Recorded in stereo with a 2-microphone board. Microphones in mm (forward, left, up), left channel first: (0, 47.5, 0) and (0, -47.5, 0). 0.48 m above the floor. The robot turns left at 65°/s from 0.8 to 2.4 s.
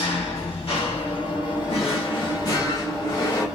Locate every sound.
0.0 s an engine running: 100° left, 1.3 m; by 3.6 s straight ahead, 1.3 m
1.7 s a drawer: 90° left, 1.0 m; by 3.5 s 40° left, 1.0 m